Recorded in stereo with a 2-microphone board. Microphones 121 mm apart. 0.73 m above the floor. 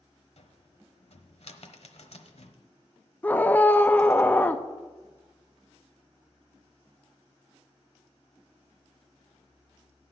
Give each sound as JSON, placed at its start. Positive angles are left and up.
{"t": 0.4, "sound": "a cupboard door", "side_deg": 65, "distance_m": 1.0}
{"t": 3.2, "sound": "a scream", "side_deg": 15, "distance_m": 0.5}